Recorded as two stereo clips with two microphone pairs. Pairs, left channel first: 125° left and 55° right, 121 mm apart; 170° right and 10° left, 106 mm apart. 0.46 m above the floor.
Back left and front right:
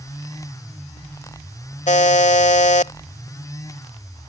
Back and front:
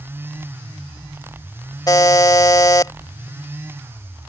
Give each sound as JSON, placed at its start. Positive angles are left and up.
{"t": 1.9, "sound": "a buzzer", "azimuth_deg": 135}